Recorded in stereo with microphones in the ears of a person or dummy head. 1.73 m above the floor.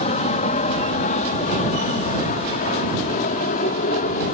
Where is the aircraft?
40° left (ahead or behind); by 4.3 s 45° left (ahead or behind).